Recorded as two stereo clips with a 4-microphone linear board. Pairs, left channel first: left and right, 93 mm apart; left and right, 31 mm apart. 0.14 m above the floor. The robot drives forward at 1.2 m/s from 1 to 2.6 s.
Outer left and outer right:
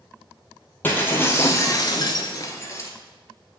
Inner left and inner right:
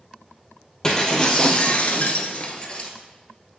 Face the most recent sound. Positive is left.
turn(degrees=35)  # may be behind; listen again after turning